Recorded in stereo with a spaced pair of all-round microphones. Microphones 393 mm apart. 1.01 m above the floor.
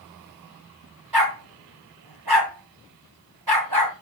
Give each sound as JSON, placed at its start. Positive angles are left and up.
{"t": 1.1, "sound": "a dog barking", "side_deg": -70, "distance_m": 1.8}